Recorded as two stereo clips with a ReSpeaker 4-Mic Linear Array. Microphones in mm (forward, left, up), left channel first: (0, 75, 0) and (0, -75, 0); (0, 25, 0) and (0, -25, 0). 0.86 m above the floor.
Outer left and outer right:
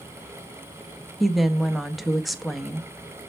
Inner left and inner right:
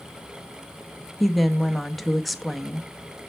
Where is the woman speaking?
Centre (ahead or behind), 0.6 m.